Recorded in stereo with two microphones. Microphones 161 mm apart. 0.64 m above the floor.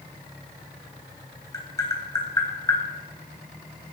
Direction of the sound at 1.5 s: 20° left (ahead or behind).